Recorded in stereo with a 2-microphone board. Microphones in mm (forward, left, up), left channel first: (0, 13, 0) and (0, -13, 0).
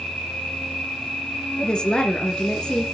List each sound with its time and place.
0.0 s an insect: 60° left (ahead or behind), 2.5 m
1.6 s a woman speaking: 35° left (ahead or behind), 1.9 m